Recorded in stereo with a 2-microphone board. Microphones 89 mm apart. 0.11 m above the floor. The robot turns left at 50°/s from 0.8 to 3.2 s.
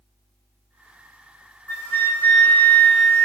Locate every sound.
1.7 s a flute: 20° left (ahead or behind), 0.7 m; by 3.2 s 10° left (ahead or behind), 0.7 m